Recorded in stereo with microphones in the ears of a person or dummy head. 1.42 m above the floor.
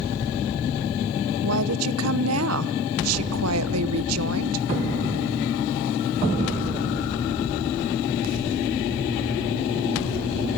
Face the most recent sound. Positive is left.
turn(degrees=-85)